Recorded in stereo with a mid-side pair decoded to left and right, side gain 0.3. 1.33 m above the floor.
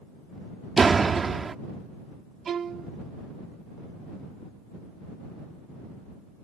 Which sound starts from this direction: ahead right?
A door slam, at 0.8 s.